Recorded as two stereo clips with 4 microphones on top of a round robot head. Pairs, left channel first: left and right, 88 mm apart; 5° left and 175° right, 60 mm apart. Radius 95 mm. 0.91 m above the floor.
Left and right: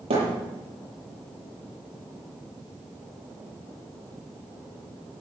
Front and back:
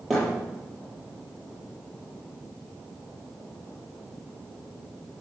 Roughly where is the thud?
Right.